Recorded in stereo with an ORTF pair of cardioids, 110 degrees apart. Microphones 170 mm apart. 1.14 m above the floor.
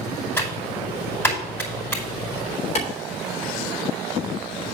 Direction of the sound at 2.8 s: 45° left.